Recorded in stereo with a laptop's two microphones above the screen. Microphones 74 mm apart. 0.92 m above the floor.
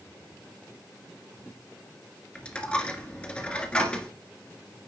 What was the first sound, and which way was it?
A dropped coin, 15° left (ahead or behind).